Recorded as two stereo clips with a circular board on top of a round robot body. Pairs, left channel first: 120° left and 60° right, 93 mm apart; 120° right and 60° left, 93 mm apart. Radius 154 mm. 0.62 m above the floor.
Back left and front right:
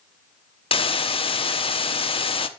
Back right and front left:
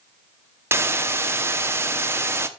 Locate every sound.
0.7 s a hiss: 120° left, 1.0 m